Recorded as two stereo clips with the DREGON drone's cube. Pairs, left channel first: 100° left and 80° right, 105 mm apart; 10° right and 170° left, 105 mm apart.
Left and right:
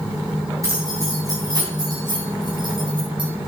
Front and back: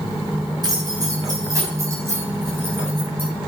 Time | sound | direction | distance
0.6 | keys jangling | 140° right | 4 m